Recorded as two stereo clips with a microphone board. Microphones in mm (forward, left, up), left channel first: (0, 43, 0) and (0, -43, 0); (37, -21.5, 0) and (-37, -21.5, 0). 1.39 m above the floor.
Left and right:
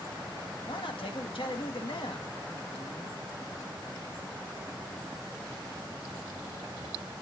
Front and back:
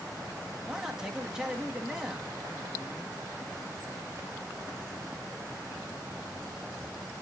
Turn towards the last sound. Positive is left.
turn(degrees=100)